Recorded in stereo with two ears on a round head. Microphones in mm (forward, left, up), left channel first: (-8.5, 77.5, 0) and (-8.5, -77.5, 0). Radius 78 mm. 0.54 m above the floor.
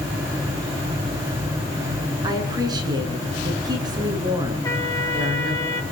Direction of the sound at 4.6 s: 20° left (ahead or behind).